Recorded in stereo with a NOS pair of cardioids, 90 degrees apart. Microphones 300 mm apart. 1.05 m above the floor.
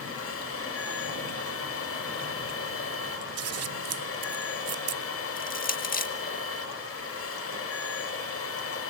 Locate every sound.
0.0 s a machine running: 50° left, 6 m
3.4 s scissors: 55° right, 1.0 m
5.4 s crushing: 30° left, 2 m